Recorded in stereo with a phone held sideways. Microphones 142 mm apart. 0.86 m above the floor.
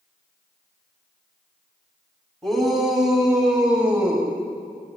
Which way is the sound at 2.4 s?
Centre (ahead or behind).